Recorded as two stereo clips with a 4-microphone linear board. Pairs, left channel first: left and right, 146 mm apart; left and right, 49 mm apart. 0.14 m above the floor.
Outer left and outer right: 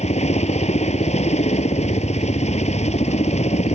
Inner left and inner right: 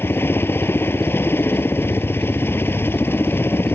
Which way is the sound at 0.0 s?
50° left (ahead or behind).